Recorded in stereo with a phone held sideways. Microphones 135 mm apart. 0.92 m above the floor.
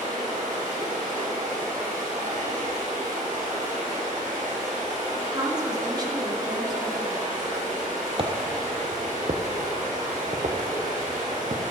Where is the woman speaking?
30° right (ahead or behind), 2.0 m.